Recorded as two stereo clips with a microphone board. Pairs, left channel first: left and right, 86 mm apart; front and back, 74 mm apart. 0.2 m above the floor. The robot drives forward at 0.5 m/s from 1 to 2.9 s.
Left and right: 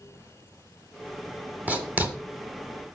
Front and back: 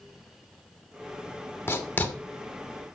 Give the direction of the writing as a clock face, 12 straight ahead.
1 o'clock.